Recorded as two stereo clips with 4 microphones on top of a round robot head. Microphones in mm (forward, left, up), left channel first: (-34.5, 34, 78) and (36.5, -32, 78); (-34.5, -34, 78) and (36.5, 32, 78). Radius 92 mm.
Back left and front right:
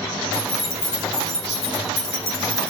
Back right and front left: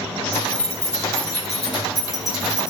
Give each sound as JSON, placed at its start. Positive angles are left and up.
{"t": 0.3, "sound": "keys jangling", "azimuth_deg": 145, "distance_m": 4.5}